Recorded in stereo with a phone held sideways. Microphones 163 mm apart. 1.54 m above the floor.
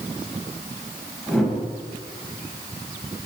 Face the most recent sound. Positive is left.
turn(degrees=0)  # may be behind; listen again after turning